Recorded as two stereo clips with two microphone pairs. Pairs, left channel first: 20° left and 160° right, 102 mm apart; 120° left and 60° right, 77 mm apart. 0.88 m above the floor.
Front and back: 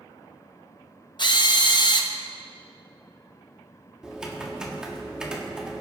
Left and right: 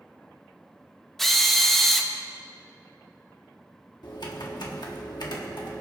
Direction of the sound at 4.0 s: 115° left.